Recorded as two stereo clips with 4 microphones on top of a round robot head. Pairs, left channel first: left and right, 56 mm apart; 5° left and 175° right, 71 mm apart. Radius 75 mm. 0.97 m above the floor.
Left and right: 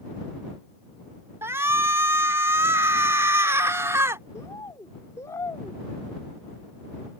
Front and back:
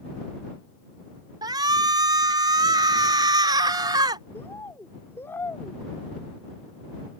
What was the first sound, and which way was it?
A shout, 140° right.